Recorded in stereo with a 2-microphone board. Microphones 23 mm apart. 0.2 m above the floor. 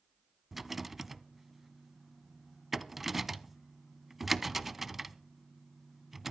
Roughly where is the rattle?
Centre.